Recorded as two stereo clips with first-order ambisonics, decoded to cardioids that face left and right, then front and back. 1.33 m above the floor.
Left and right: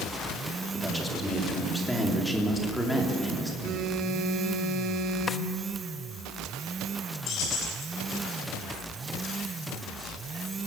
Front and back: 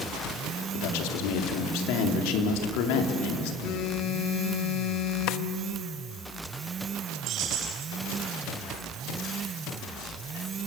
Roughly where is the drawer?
Ahead.